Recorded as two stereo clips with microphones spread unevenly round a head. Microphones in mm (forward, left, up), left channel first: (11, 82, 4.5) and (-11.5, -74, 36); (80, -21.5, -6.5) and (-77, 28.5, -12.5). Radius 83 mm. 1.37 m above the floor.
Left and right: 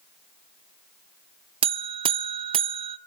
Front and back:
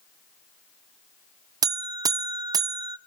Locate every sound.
1.6 s a buzzer: 130° right, 0.6 m